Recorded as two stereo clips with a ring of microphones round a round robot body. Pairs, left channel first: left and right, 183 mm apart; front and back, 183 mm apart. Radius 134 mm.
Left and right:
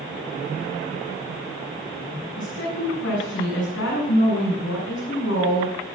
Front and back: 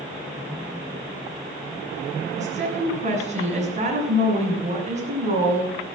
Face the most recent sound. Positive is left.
turn(degrees=130)